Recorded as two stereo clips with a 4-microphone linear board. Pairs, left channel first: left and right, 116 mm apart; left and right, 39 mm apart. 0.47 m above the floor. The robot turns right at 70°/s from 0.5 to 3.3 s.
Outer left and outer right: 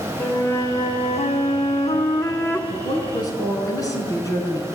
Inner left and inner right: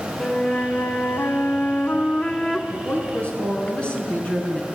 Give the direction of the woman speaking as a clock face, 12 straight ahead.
8 o'clock.